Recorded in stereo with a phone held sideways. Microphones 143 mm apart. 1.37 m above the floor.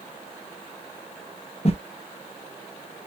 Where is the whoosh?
45° left (ahead or behind), 0.6 m.